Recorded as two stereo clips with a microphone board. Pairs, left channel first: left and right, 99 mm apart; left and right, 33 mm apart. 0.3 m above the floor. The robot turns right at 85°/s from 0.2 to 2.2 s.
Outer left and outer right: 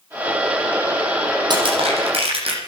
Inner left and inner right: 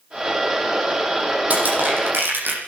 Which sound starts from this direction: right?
Crushing, at 1.5 s.